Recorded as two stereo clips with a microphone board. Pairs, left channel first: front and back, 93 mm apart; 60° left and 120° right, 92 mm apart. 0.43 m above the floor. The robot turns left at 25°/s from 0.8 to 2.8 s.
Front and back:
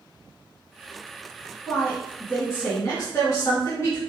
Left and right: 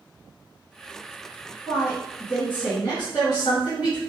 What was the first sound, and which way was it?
A woman speaking, 70° left.